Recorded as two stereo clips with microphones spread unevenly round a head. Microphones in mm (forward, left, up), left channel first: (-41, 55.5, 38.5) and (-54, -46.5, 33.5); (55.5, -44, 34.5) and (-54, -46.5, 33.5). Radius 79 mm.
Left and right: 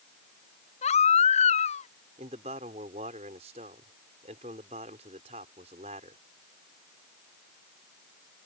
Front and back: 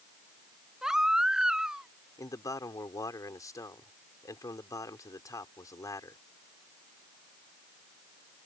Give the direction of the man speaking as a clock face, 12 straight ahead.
2 o'clock.